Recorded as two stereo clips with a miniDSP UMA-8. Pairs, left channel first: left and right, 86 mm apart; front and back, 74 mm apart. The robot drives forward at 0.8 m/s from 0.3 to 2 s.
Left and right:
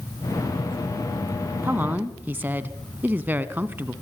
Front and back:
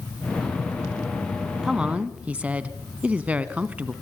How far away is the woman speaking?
About 1.4 m.